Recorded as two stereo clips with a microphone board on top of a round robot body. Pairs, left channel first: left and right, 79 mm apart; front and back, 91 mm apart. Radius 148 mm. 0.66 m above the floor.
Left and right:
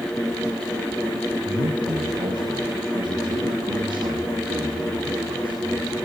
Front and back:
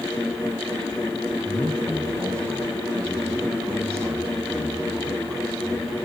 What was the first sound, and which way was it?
A man speaking, 120° right.